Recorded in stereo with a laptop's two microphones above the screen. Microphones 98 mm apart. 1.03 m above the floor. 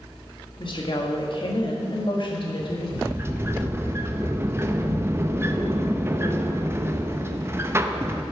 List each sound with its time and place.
0.6 s a woman speaking: 55° left (ahead or behind), 1.4 m
3.0 s a sliding door: 25° right (ahead or behind), 0.7 m